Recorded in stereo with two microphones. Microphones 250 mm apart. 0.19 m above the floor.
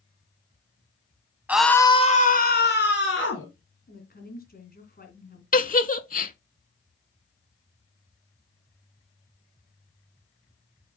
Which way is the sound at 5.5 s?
35° left (ahead or behind).